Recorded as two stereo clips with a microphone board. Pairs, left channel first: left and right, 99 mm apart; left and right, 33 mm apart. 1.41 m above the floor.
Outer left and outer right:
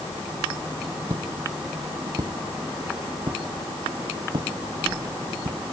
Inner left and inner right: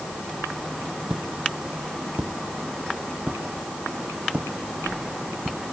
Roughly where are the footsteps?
Right.